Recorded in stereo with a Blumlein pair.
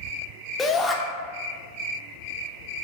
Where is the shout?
10° left, 0.7 m.